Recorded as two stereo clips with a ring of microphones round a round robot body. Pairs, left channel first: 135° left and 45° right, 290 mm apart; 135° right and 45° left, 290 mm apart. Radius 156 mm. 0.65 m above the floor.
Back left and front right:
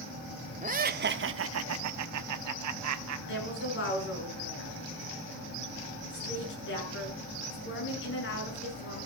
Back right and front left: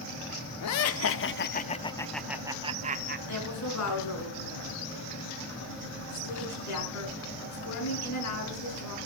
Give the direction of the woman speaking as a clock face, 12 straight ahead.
6 o'clock.